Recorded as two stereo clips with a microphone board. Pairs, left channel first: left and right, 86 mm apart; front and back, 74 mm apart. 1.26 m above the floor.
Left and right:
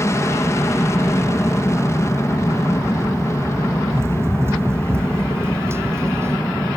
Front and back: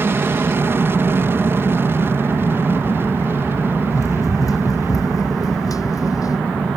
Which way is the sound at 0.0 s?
135° left.